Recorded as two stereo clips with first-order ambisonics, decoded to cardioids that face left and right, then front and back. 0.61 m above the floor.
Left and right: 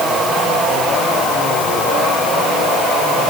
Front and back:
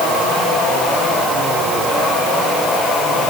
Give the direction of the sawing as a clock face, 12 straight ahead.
I don't hear sawing.